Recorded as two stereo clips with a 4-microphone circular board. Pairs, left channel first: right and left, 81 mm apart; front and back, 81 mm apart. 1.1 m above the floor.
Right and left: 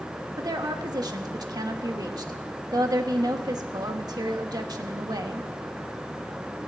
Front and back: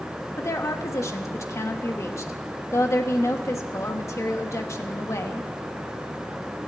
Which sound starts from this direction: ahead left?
A woman speaking, at 0.4 s.